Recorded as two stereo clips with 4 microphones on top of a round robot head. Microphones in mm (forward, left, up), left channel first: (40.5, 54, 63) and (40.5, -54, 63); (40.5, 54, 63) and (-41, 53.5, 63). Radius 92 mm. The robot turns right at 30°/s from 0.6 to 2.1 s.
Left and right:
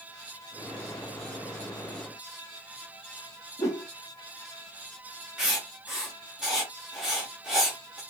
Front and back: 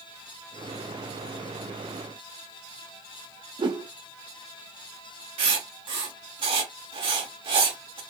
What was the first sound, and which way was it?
A whoosh, 155° left.